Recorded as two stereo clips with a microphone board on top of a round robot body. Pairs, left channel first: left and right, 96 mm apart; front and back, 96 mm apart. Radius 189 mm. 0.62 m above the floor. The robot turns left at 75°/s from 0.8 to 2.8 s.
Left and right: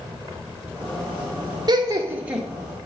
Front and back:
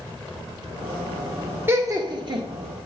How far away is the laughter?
About 0.9 m.